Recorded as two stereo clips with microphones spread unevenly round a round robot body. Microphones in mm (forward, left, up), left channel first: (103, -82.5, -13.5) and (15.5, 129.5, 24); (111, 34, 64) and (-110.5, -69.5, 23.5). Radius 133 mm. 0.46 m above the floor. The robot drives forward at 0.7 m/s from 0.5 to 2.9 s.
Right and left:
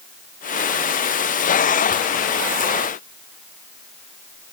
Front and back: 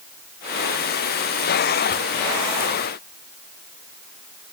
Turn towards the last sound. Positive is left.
No sound to turn to.